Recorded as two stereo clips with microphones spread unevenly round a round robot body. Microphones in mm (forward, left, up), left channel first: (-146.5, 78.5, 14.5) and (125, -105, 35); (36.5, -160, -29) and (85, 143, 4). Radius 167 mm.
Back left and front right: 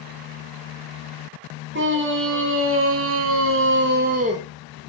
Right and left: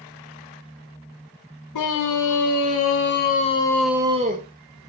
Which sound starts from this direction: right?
A scream, at 1.7 s.